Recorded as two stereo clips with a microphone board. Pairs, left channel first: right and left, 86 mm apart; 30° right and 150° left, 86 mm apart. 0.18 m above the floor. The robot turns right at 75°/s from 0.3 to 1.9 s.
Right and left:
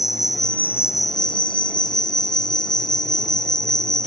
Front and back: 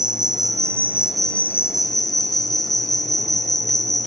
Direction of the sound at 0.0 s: 175° left.